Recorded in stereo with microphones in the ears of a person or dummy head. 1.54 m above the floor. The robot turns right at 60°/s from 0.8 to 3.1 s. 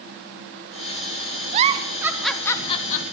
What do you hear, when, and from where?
1.5 s a giggle: 45° right (ahead or behind), 0.6 m; by 3.0 s 45° left (ahead or behind), 0.6 m